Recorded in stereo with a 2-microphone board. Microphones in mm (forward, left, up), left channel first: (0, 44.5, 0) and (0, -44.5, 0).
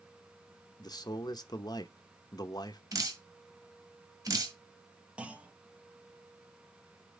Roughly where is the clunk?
Centre.